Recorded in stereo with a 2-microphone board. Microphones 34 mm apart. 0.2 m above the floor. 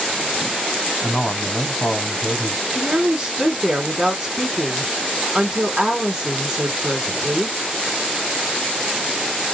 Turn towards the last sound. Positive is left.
turn(degrees=-10)  # may be behind; listen again after turning